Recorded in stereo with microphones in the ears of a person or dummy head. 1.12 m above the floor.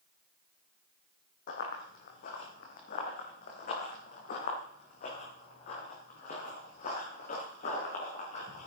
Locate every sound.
1.5 s running footsteps: 50° left (ahead or behind), 3 m; by 8.7 s 45° left (ahead or behind), 6.5 m